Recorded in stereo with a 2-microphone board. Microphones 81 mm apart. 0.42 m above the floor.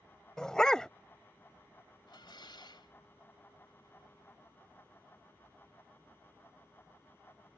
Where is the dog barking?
10° left (ahead or behind).